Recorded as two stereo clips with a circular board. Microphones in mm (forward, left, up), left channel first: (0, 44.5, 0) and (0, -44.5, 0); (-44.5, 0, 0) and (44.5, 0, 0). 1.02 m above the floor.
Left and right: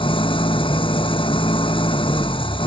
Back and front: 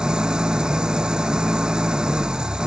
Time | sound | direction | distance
0.0 | an engine running | 80° left | ?